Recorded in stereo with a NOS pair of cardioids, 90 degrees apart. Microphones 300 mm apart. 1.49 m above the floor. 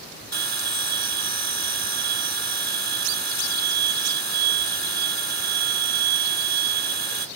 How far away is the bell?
About 0.9 m.